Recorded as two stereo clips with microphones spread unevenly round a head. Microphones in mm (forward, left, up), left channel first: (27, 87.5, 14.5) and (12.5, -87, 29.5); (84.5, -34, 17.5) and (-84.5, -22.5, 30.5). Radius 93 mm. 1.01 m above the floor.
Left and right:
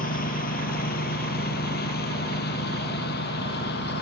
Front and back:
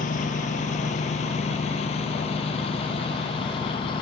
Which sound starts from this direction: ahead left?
A lawn mower, at 0.0 s.